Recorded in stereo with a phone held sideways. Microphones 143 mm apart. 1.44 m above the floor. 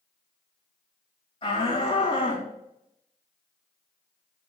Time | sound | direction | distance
1.4 | a shout | 35° left (ahead or behind) | 2.5 m